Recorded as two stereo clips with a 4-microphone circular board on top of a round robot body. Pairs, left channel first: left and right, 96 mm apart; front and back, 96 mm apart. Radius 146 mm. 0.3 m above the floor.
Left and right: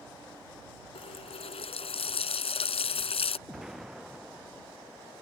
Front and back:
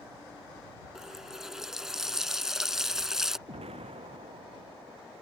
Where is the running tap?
95° left.